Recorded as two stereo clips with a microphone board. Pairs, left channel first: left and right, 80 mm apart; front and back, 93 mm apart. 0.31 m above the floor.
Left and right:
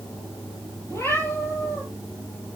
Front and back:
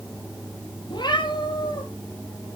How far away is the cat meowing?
About 5.5 m.